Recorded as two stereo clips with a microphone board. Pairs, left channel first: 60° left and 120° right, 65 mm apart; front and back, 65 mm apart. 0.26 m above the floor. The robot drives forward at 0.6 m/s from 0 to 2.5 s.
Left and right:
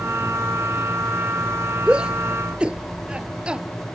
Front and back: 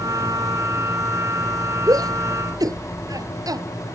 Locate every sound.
1.9 s a shout: 165° left